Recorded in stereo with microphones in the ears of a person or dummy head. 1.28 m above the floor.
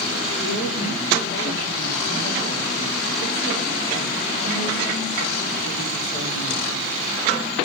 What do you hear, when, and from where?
0.4 s a woman speaking: 50° left (ahead or behind), 5 m